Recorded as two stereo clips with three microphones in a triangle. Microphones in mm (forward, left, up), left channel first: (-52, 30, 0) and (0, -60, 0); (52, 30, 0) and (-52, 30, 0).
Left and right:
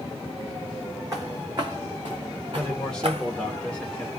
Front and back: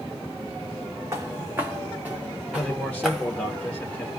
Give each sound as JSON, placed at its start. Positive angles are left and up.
{"t": 1.1, "sound": "footsteps", "azimuth_deg": -115, "distance_m": 1.9}
{"t": 2.5, "sound": "a man speaking", "azimuth_deg": 55, "distance_m": 1.0}